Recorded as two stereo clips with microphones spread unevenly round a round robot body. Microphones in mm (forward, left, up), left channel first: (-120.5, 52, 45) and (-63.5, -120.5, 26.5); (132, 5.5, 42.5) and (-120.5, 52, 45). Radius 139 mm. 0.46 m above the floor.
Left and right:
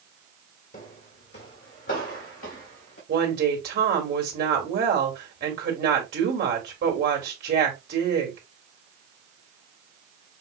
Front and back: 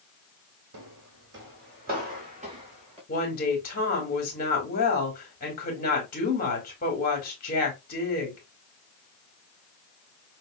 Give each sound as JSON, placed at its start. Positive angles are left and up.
{"t": 0.7, "sound": "footsteps", "azimuth_deg": 145, "distance_m": 0.9}
{"t": 3.1, "sound": "a woman speaking", "azimuth_deg": -65, "distance_m": 1.7}